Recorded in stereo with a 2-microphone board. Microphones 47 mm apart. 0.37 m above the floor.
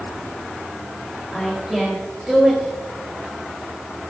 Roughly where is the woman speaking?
Centre.